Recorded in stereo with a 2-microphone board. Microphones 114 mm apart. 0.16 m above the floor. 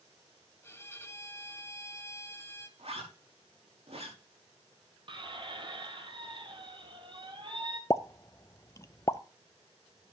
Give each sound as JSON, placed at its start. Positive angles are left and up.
{"t": 0.6, "sound": "a violin", "side_deg": 20, "distance_m": 1.1}
{"t": 2.8, "sound": "a zipper", "side_deg": -65, "distance_m": 6.0}
{"t": 5.1, "sound": "a squeak", "side_deg": -45, "distance_m": 1.4}
{"t": 7.9, "sound": "a pop", "side_deg": 30, "distance_m": 0.6}